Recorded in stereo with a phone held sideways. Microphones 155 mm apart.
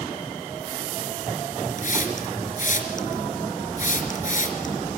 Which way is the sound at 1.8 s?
55° left (ahead or behind).